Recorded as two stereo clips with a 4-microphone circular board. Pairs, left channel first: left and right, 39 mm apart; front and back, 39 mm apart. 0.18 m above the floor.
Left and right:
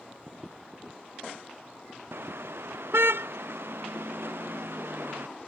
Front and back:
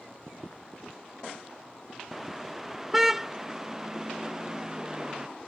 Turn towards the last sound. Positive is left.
turn(degrees=-110)